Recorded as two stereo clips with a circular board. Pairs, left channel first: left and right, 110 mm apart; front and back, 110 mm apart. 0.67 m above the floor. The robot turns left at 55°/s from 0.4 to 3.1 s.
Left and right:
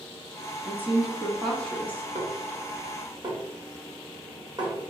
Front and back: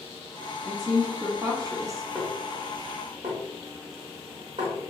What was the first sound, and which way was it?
A woman speaking, 140° right.